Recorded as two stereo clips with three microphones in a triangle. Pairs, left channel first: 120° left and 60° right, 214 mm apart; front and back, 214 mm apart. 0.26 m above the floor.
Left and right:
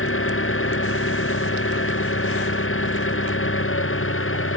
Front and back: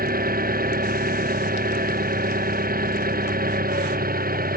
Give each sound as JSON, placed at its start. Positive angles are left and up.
{"t": 0.0, "sound": "an engine running", "azimuth_deg": 135}